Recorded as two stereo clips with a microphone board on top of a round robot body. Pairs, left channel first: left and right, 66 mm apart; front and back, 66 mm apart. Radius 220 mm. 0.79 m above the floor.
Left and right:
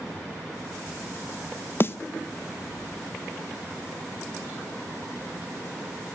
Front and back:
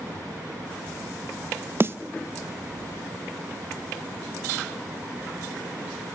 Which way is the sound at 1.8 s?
135° left.